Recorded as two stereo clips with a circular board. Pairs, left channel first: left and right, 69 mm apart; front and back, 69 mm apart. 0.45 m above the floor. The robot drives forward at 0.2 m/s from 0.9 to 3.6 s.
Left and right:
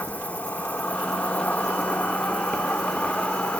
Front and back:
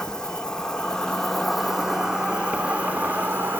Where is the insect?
70° left, 0.7 m; by 3.6 s 145° left, 0.8 m.